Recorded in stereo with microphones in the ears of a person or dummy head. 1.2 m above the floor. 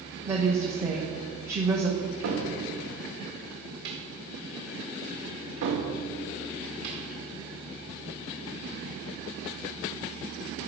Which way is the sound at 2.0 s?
65° right (ahead or behind).